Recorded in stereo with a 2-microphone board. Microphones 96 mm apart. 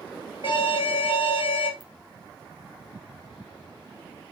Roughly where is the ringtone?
Left.